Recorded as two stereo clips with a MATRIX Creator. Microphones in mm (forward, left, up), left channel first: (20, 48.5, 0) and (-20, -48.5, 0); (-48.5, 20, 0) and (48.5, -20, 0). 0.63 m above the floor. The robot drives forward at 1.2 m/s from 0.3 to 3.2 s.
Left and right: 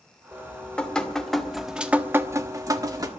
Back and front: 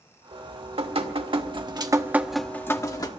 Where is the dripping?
10° right, 2.5 m; by 3.1 s 160° right, 1.4 m.